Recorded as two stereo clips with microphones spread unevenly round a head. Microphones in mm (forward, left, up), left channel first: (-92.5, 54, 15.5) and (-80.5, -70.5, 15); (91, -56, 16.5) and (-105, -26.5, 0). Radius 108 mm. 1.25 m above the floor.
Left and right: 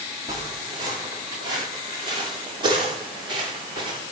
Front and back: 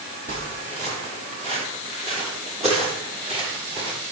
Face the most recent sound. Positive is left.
turn(degrees=-130)